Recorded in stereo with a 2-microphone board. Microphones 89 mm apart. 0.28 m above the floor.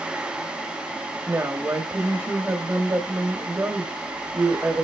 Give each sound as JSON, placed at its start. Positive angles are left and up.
{"t": 1.3, "sound": "a woman speaking", "side_deg": -30, "distance_m": 1.0}